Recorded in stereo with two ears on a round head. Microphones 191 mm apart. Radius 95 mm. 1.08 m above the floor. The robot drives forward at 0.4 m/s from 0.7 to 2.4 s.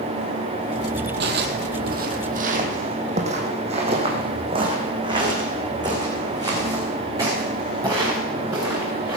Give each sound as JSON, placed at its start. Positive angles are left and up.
{"t": 1.2, "sound": "footsteps", "side_deg": -55, "distance_m": 1.9}